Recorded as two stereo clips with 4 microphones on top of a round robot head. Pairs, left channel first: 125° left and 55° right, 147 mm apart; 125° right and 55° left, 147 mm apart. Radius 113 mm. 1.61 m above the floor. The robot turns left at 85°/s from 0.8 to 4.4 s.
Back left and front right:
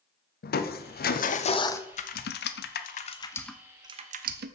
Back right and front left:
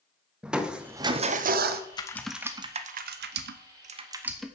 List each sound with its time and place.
0.4 s crushing: 140° left, 0.8 m; by 1.8 s 50° left, 0.8 m
1.9 s typing on a keyboard: 175° left, 0.5 m; by 4.5 s 35° right, 0.5 m